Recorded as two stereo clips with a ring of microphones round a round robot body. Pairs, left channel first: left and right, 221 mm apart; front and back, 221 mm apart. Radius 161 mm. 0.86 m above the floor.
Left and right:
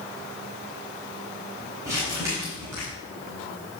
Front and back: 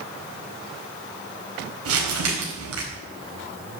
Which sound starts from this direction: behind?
Crumpling, at 1.9 s.